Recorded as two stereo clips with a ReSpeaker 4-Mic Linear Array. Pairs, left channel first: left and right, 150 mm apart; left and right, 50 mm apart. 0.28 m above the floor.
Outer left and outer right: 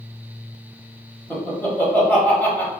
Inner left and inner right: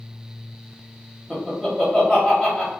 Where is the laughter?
10° left (ahead or behind), 1.1 m.